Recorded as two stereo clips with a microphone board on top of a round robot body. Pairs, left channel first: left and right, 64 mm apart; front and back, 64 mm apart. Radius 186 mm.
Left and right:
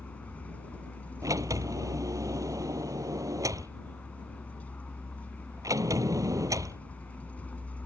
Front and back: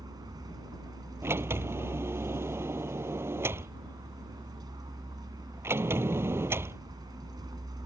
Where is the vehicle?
160° left.